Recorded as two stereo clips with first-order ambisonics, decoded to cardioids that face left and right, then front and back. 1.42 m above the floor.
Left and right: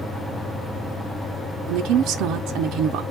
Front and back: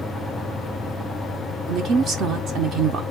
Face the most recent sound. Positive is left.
turn(degrees=-130)